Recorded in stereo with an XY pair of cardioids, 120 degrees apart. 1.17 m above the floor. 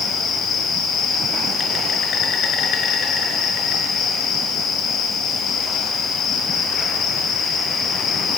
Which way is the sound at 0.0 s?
65° left.